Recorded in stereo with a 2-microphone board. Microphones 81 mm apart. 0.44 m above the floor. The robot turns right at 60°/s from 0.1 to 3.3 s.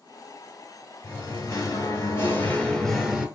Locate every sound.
1.0 s singing: 60° left, 1.1 m; by 3.3 s 165° right, 1.1 m